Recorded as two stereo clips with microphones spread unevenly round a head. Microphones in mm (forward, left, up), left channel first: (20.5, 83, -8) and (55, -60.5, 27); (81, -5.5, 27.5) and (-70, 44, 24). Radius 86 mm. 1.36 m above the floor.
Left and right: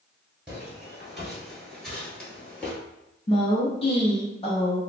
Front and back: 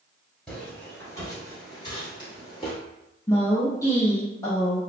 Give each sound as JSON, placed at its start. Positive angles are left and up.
{"t": 0.5, "sound": "footsteps", "azimuth_deg": -85, "distance_m": 1.3}
{"t": 3.3, "sound": "a woman speaking", "azimuth_deg": 55, "distance_m": 0.8}